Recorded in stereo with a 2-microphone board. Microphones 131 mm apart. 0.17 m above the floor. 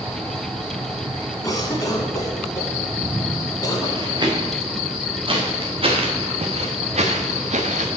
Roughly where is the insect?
Right.